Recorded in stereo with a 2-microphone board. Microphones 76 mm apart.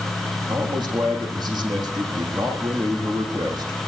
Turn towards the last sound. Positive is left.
turn(degrees=-65)  # may be behind; listen again after turning